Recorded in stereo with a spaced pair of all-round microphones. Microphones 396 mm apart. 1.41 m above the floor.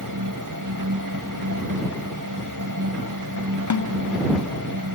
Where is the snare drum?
50° left (ahead or behind).